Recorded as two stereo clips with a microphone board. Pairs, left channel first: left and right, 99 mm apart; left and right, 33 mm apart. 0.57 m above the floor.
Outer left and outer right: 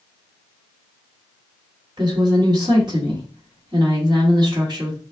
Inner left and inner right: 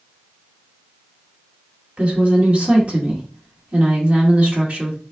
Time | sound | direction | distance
2.0 | a woman speaking | 50° right (ahead or behind) | 1.6 m